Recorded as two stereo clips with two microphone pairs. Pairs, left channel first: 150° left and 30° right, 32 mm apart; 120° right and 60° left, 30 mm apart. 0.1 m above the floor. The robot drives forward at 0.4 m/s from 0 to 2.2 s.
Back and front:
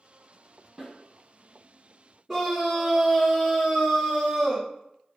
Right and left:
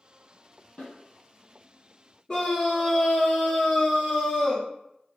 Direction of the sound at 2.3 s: 120° right.